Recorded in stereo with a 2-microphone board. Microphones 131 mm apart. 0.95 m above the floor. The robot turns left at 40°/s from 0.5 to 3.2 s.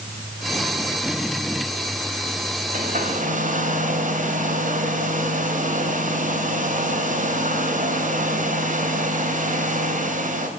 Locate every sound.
2.7 s a hair dryer: 75° right (ahead or behind), 2 m; by 10.5 s 80° right, 2 m